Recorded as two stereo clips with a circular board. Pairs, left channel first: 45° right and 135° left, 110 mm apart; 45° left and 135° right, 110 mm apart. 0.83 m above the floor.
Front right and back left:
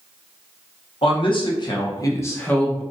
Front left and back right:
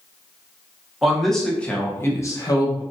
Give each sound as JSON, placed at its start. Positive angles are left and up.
{"t": 1.0, "sound": "a man speaking", "azimuth_deg": -50, "distance_m": 1.0}